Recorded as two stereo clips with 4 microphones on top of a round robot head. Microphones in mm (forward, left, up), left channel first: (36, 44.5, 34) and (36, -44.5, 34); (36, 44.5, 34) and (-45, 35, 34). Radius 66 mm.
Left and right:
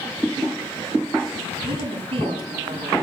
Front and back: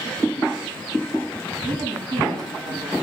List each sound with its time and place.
1.6 s a woman speaking: 125° right, 8 m